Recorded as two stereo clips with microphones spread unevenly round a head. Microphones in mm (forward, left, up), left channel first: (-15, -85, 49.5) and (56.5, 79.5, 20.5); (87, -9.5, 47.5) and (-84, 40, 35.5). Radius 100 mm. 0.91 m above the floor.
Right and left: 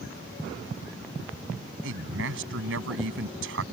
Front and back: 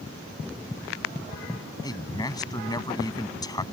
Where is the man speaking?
55° left.